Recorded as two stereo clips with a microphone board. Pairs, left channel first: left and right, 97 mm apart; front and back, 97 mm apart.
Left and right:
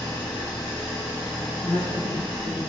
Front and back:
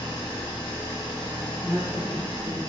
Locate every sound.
0.0 s an engine running: 40° left, 1.8 m
1.6 s a woman speaking: 130° left, 1.4 m